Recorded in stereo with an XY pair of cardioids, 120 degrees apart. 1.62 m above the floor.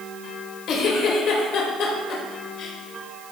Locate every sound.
0.7 s a giggle: 65° left, 2 m